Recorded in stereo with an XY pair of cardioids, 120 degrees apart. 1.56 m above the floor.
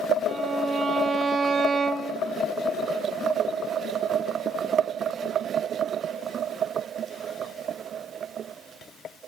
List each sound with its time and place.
0.3 s a violin: 30° right, 1.8 m